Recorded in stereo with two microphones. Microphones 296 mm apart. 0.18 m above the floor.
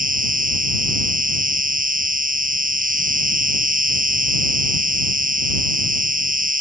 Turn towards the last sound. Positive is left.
turn(degrees=-25)  # may be behind; listen again after turning